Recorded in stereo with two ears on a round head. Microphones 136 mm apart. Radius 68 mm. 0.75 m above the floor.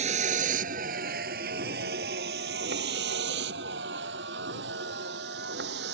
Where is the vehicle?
50° right (ahead or behind); by 5.9 s 80° right.